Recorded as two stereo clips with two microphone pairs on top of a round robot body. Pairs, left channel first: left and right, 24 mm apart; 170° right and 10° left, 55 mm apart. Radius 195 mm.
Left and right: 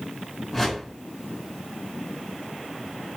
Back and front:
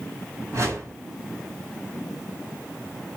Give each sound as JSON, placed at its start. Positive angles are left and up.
{"t": 0.5, "sound": "a whoosh", "azimuth_deg": 15, "distance_m": 2.0}